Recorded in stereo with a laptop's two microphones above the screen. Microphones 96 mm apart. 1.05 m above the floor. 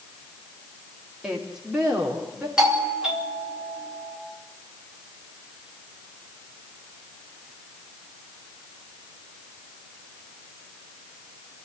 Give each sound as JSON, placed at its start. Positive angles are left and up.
{"t": 1.2, "sound": "a woman speaking", "side_deg": -5, "distance_m": 2.5}
{"t": 2.6, "sound": "a doorbell", "side_deg": -5, "distance_m": 3.0}